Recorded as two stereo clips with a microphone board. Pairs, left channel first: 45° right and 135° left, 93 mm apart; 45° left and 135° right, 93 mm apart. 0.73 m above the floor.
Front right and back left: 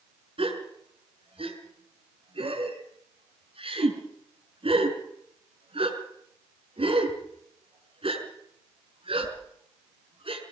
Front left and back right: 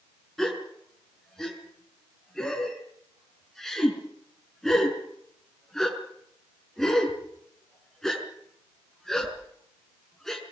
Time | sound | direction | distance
0.4 | a gasp | 130° left | 5.5 m